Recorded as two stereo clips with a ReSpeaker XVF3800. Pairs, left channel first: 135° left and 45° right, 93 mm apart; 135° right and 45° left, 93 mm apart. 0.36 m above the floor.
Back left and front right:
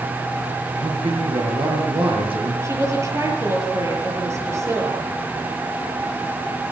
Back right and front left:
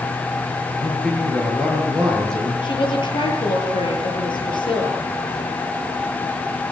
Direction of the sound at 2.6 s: 105° right.